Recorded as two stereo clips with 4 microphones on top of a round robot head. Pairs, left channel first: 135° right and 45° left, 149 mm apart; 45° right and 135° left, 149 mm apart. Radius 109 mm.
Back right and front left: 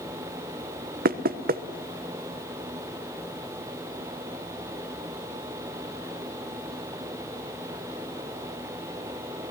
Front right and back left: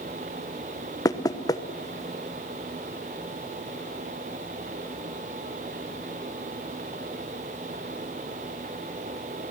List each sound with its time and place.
1.1 s knocking: 20° left, 1.1 m